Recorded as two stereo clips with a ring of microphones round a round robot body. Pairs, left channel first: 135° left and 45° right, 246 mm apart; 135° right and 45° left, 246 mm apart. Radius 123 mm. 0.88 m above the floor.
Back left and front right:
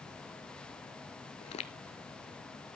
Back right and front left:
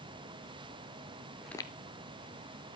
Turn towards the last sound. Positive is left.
turn(degrees=-155)